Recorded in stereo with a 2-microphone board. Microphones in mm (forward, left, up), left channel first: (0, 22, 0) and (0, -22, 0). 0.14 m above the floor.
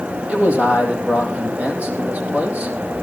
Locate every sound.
0.3 s a man speaking: 35° right (ahead or behind), 4 m